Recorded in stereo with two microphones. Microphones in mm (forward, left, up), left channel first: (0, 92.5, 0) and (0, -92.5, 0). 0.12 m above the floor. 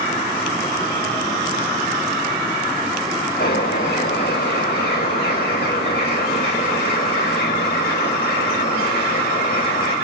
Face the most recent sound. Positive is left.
turn(degrees=55)  # may be behind; listen again after turning